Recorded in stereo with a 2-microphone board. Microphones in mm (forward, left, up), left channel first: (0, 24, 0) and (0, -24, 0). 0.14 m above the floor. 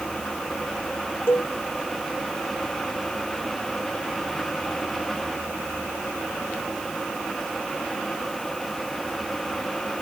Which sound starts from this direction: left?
A cowbell, at 1.3 s.